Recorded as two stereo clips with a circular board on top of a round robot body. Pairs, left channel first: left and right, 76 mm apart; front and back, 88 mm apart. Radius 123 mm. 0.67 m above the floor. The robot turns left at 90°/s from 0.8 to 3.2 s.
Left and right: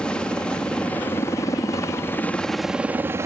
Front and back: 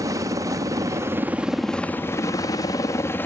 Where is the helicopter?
160° left; by 3.3 s 55° right.